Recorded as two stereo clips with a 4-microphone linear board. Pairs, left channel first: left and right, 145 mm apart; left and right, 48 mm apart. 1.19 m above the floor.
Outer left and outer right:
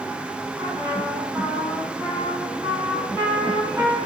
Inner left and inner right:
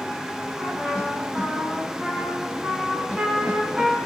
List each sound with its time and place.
0.6 s a trumpet: 25° right (ahead or behind), 2.5 m